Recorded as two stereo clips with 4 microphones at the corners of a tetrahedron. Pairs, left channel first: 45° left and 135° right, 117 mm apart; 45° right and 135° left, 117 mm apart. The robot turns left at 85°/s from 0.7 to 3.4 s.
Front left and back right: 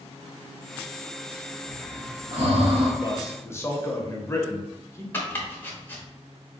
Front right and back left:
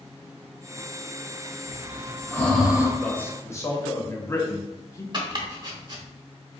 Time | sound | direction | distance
1.7 | breathing | 55° right | 0.8 m
3.0 | a man speaking | 30° left | 0.8 m
5.1 | chopping | 110° left | 0.9 m